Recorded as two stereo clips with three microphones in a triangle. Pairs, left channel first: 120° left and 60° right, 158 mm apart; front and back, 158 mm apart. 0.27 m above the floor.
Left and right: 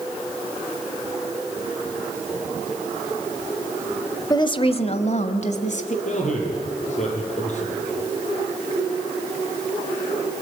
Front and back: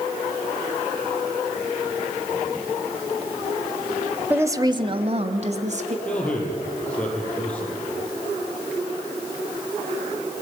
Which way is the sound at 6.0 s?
80° left.